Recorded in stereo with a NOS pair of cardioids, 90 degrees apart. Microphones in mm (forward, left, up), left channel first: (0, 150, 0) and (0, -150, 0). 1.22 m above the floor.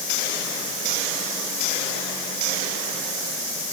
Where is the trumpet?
No trumpet in this recording.